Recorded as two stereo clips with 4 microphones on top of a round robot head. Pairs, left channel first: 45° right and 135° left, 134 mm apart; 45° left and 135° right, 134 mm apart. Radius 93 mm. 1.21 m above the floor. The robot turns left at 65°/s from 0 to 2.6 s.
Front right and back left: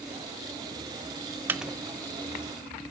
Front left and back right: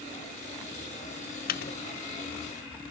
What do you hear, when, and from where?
1.5 s a microwave: 60° left, 0.8 m; by 1.7 s 45° left, 0.8 m